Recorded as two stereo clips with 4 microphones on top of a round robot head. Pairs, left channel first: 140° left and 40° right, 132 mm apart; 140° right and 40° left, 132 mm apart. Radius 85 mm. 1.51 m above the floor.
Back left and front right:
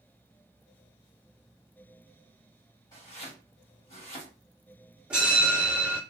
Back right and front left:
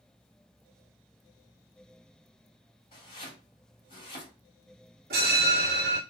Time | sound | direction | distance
2.9 | chopping | 170° right | 1.5 m
5.1 | a bell | 45° left | 0.9 m